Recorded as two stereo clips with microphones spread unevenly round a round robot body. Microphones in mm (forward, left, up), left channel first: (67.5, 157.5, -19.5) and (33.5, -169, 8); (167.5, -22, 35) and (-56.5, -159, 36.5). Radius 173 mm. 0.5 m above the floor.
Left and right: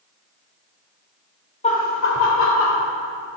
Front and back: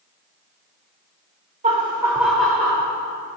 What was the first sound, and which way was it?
Laughter, 150° left.